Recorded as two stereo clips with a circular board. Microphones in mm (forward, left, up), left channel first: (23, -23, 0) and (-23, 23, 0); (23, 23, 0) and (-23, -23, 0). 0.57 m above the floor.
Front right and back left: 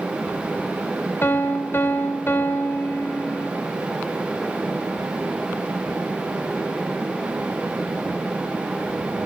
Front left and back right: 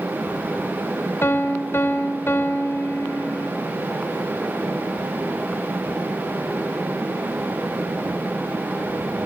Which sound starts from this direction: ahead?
A piano, at 1.2 s.